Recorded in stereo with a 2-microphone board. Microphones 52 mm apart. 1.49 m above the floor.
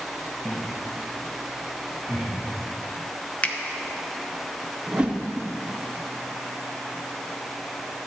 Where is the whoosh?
20° right (ahead or behind), 0.8 m.